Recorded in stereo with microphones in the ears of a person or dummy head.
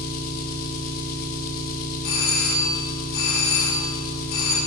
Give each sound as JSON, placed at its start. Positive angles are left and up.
{"t": 0.0, "sound": "an engine running", "side_deg": 50, "distance_m": 1.7}
{"t": 2.0, "sound": "a doorbell", "side_deg": 80, "distance_m": 6.0}